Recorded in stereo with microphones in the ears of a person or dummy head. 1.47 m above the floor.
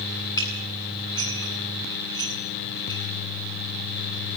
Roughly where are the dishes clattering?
Centre.